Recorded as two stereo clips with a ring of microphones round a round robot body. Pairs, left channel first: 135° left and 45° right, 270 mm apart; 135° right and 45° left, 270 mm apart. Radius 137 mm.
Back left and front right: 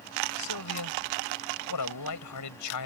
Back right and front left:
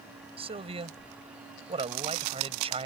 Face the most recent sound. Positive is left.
turn(degrees=115)